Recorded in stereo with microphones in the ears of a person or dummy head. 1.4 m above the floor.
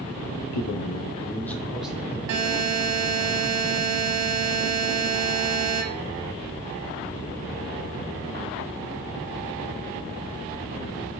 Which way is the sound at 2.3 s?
60° right (ahead or behind).